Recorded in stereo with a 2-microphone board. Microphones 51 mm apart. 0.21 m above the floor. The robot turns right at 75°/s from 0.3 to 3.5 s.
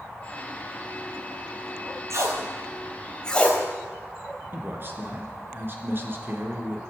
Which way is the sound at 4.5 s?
45° right (ahead or behind).